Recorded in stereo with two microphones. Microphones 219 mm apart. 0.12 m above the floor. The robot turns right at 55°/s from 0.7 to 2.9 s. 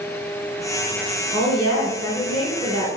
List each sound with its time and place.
1.3 s a woman speaking: 10° left (ahead or behind), 1.3 m; by 2.9 s 25° left (ahead or behind), 1.3 m